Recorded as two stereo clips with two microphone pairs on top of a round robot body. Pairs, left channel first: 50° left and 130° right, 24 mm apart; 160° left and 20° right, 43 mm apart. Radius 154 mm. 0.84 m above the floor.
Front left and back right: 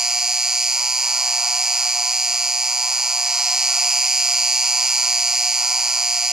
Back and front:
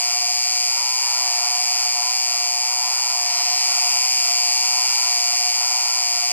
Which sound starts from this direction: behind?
An insect, at 0.0 s.